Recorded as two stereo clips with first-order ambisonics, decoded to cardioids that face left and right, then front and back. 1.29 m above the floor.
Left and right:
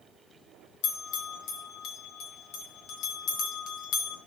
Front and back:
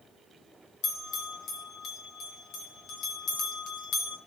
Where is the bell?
55° left, 2.5 m.